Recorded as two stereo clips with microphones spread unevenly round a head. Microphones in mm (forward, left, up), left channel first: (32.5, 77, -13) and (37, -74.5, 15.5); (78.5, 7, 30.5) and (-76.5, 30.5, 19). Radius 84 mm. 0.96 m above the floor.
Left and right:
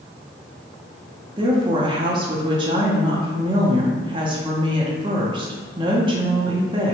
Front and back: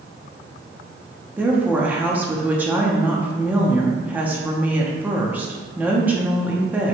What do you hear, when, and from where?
1.4 s a woman speaking: 135° right, 0.7 m